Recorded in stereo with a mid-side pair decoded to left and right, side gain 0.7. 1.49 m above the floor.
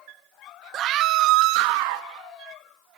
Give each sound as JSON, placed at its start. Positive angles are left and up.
{"t": 0.7, "sound": "a scream", "azimuth_deg": -45, "distance_m": 1.2}